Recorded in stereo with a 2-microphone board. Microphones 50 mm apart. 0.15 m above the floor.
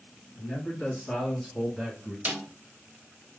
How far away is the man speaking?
About 2.5 m.